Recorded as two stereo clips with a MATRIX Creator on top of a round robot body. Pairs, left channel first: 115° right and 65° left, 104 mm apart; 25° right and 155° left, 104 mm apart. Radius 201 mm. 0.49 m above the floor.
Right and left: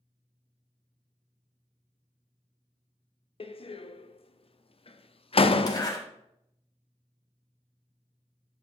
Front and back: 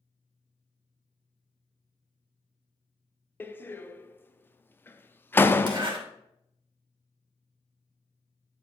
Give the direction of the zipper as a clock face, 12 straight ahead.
5 o'clock.